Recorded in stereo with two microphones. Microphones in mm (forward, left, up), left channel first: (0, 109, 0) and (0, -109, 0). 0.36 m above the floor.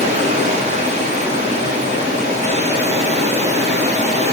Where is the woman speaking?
No woman speaking in this recording.